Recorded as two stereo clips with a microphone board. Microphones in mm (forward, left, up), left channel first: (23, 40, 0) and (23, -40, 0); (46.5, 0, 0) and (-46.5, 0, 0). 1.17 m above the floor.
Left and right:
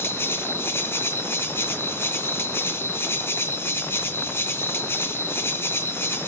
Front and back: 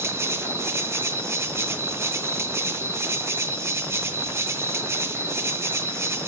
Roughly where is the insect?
Behind left.